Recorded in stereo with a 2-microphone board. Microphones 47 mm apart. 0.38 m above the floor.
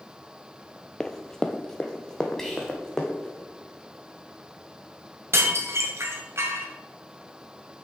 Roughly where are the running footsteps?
Centre.